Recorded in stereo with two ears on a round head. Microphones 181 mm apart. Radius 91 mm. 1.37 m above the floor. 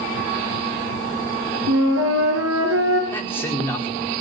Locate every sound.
1.7 s a flute: 75° right (ahead or behind), 7.5 m
3.1 s a man speaking: 10° left (ahead or behind), 4.5 m